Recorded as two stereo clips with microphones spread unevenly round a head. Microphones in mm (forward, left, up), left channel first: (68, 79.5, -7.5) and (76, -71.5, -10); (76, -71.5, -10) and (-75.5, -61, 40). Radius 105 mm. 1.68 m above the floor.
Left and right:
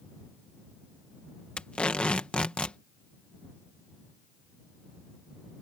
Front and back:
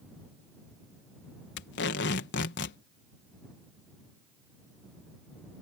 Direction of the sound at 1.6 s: 10° left.